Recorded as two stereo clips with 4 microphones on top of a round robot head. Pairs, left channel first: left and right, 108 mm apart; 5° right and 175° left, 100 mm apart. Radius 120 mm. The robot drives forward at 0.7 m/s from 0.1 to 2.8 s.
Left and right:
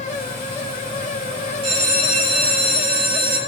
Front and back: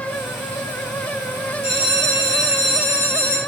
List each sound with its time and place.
1.6 s a bell: 115° right, 3.5 m; by 3.4 s 125° right, 4 m